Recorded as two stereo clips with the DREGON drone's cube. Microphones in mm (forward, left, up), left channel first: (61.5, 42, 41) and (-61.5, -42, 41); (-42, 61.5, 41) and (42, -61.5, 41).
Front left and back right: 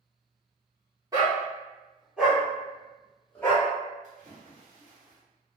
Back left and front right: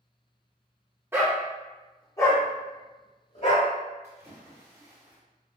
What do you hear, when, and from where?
1.1 s a dog barking: 115° right, 1.0 m; by 3.7 s 105° left, 1.5 m
4.0 s a splash: 125° right, 1.1 m